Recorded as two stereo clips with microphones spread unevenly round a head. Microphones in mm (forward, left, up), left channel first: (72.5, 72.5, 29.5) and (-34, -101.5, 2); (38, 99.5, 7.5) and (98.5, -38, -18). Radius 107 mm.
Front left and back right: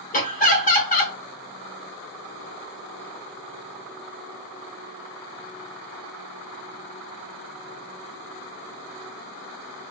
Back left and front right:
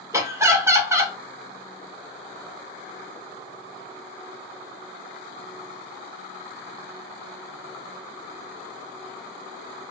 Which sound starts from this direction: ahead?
Laughter, at 0.1 s.